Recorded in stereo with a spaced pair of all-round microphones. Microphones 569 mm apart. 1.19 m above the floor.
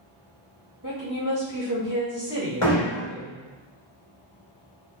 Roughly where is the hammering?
Left.